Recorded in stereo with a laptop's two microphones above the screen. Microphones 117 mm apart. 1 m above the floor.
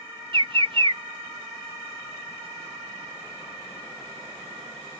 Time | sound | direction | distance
0.3 | a bird | 45° right (ahead or behind) | ?